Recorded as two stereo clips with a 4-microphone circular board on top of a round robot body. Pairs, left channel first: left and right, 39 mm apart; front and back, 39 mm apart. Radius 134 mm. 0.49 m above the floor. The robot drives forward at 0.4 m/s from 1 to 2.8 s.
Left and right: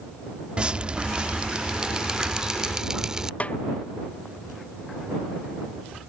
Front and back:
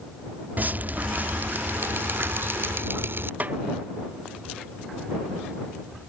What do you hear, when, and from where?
0.6 s dripping: 150° right; by 3.3 s 160° right
3.4 s a snare drum: 140° left